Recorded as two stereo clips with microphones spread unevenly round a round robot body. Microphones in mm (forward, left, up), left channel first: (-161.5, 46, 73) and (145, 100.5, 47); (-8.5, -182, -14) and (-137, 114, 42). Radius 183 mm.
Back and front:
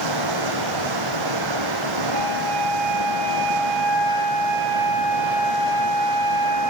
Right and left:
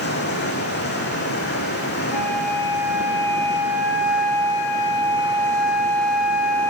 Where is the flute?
25° right, 4.5 m.